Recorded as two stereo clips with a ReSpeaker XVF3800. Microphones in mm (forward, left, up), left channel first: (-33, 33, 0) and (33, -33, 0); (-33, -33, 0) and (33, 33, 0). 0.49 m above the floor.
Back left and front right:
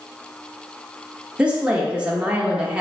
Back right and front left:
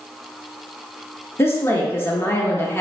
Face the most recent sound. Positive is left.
turn(degrees=-110)